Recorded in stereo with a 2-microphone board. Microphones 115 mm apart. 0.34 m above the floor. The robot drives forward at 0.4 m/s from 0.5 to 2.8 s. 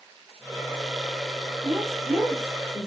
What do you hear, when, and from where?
1.6 s a woman speaking: 10° right (ahead or behind), 1.3 m; by 2.9 s 5° right (ahead or behind), 1.5 m